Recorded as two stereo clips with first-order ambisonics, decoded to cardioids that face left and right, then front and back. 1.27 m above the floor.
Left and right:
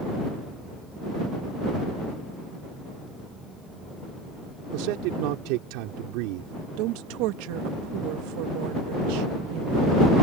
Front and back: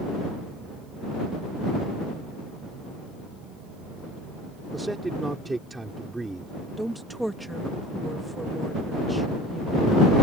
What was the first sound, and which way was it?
A man speaking, 100° right.